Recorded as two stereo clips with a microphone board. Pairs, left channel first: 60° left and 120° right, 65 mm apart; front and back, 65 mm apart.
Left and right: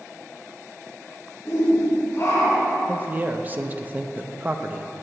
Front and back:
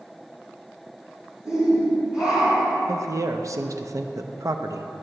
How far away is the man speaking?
About 0.5 m.